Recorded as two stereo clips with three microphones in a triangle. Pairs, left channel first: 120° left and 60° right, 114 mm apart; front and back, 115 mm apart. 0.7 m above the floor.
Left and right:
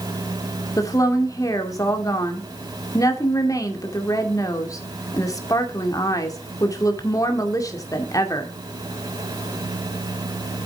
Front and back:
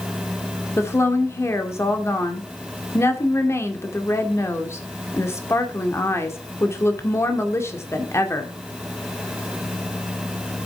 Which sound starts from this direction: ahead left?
A woman speaking, at 0.8 s.